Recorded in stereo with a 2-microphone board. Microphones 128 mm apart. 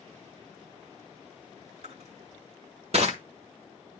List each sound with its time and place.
1.8 s crushing: 55° right (ahead or behind), 1.4 m